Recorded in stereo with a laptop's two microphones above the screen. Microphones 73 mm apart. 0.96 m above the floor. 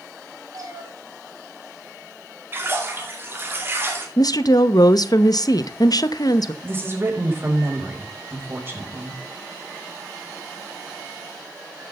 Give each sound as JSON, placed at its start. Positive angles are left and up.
{"t": 0.5, "sound": "a cat meowing", "side_deg": -50, "distance_m": 3.5}
{"t": 2.5, "sound": "a splash", "side_deg": -30, "distance_m": 2.0}
{"t": 4.2, "sound": "a woman speaking", "side_deg": 60, "distance_m": 0.7}
{"t": 6.6, "sound": "a woman speaking", "side_deg": -30, "distance_m": 4.5}